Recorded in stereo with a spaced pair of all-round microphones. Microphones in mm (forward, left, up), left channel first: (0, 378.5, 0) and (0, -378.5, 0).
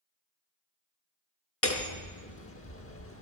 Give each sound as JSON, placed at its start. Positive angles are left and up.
{"t": 1.6, "sound": "hammering", "side_deg": 20, "distance_m": 0.8}